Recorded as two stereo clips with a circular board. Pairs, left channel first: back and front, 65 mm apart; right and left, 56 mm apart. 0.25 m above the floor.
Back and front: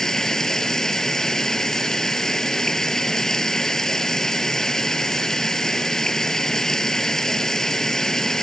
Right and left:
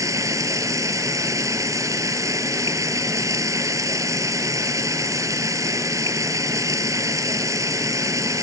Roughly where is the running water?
Left.